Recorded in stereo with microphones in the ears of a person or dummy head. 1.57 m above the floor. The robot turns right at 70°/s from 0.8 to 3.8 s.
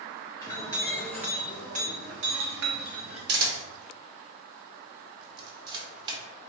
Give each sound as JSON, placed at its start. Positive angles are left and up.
{"t": 0.4, "sound": "a clink", "azimuth_deg": 150, "distance_m": 1.3}
{"t": 3.3, "sound": "a camera shutter", "side_deg": -60, "distance_m": 1.2}